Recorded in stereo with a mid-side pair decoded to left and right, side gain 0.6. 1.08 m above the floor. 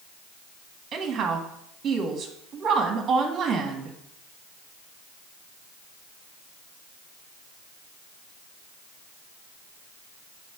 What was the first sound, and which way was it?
A woman speaking, 40° right.